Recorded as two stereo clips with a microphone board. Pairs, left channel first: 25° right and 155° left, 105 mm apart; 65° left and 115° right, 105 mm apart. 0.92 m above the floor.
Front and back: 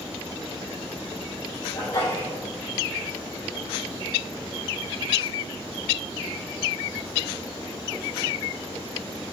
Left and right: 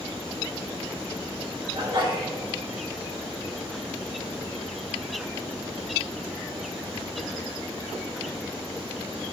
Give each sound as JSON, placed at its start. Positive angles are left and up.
{"t": 1.7, "sound": "a sneeze", "azimuth_deg": -80, "distance_m": 4.5}